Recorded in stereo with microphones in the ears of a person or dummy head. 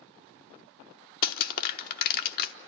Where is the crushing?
50° left (ahead or behind), 0.9 m.